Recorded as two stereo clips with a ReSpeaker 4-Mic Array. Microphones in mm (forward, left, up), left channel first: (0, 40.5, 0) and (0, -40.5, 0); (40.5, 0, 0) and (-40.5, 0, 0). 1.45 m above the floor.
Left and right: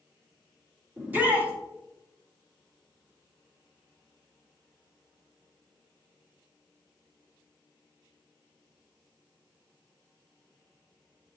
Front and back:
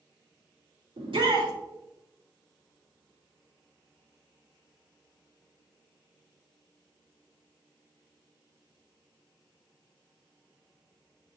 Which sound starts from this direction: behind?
A shout, at 1.0 s.